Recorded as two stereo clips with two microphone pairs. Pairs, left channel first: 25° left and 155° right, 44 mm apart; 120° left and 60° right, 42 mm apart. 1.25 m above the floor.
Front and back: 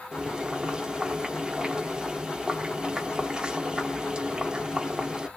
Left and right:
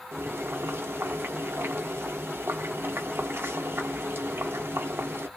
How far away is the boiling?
About 0.6 m.